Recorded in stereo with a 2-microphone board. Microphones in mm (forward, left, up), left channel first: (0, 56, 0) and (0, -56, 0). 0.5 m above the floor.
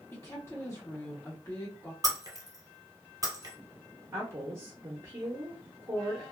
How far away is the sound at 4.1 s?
About 0.8 m.